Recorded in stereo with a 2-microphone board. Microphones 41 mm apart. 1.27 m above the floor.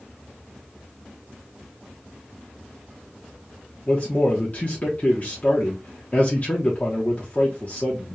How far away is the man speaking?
About 1.0 m.